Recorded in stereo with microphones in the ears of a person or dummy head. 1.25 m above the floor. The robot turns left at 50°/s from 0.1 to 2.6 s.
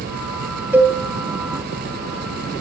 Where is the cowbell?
10° right (ahead or behind), 1.7 m; by 1.0 s 25° right (ahead or behind), 1.7 m.